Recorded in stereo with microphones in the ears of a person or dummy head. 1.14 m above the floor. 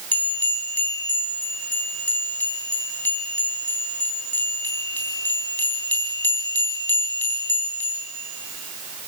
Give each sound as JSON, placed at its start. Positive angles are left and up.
{"t": 0.1, "sound": "a bell", "side_deg": 10, "distance_m": 3.5}